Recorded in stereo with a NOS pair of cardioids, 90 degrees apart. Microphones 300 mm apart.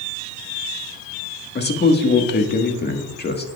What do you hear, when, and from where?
1.6 s a man speaking: 35° left, 1.6 m